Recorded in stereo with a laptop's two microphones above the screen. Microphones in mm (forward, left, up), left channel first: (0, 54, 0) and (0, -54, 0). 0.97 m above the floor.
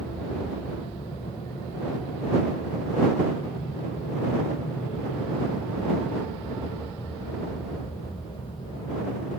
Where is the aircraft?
65° left (ahead or behind).